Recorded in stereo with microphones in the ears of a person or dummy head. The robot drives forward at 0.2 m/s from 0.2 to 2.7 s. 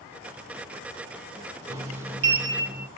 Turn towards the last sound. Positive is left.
turn(degrees=-15)  # may be behind; listen again after turning